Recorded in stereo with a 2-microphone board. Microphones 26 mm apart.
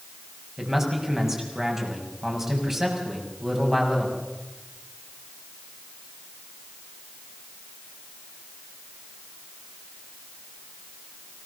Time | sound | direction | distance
0.6 | a man speaking | 20° right (ahead or behind) | 6.5 m